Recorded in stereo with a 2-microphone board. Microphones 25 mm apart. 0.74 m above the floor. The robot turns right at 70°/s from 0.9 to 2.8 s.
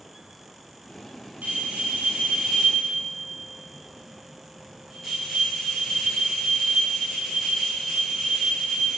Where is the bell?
105° right, 7.5 m; by 9.0 s 10° right, 7.5 m.